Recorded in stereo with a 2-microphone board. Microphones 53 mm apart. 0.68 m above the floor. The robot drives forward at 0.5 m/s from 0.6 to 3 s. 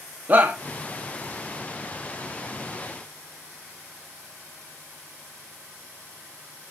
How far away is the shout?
About 0.9 m.